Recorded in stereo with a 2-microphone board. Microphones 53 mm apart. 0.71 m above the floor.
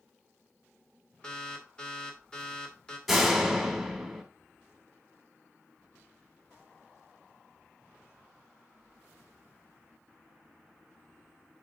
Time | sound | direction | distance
1.2 | an alarm | 20° left (ahead or behind) | 2 m
3.1 | a door slam | centre (ahead or behind) | 1.7 m